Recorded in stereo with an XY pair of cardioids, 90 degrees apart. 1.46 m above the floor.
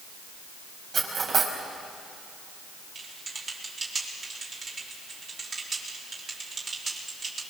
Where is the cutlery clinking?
55° right, 4.5 m.